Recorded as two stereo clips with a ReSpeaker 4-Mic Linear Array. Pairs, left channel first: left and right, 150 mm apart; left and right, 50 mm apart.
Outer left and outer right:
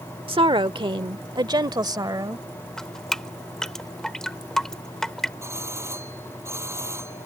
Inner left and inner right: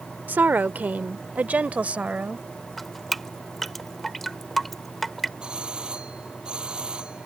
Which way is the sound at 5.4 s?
20° right (ahead or behind).